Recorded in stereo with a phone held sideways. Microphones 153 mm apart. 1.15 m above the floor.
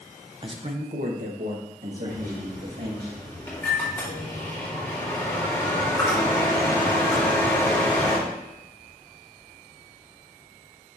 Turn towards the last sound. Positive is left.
turn(degrees=15)  # may be behind; listen again after turning